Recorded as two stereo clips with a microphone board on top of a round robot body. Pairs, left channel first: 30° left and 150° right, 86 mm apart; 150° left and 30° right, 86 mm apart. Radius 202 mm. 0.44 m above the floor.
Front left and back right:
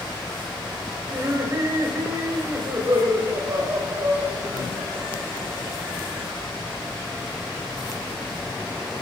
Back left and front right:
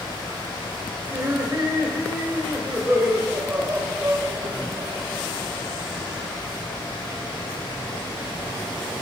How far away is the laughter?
About 2.0 m.